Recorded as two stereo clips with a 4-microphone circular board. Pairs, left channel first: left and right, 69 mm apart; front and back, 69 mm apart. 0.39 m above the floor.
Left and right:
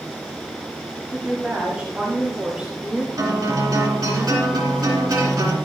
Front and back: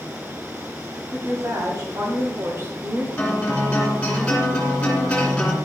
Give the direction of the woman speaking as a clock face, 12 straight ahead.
5 o'clock.